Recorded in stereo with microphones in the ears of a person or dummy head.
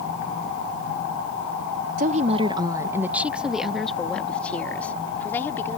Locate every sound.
2.0 s a woman speaking: 50° right (ahead or behind); by 5.8 s 15° left (ahead or behind)